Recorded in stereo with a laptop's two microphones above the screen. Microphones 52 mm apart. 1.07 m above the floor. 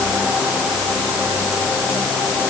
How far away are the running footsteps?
No running footsteps in this recording.